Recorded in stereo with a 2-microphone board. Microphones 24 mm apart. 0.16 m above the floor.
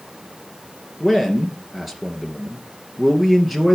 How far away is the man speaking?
About 2.5 m.